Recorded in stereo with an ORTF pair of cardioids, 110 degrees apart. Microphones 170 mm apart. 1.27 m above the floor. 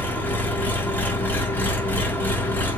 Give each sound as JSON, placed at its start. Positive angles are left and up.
{"t": 0.0, "sound": "an engine running", "azimuth_deg": 10, "distance_m": 0.9}